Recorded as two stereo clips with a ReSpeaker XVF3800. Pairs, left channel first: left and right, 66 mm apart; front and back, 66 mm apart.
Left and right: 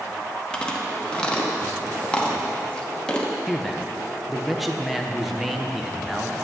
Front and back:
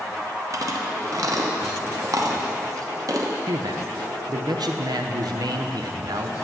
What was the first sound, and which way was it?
Chewing, 165° left.